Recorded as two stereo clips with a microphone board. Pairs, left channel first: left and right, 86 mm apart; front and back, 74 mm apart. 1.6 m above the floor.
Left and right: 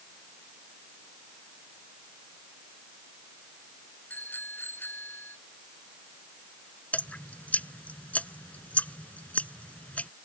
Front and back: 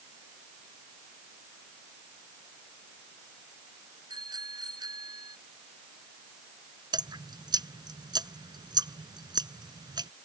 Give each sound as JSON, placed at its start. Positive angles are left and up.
{"t": 4.1, "sound": "a bicycle bell", "azimuth_deg": 160}
{"t": 6.9, "sound": "dripping", "azimuth_deg": 165}